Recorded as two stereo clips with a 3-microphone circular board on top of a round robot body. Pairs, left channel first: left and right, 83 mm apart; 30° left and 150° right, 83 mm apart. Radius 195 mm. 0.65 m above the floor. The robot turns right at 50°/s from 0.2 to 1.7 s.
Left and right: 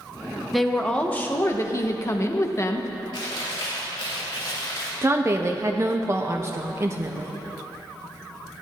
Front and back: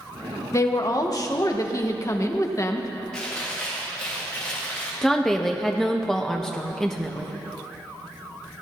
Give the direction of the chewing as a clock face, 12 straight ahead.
8 o'clock.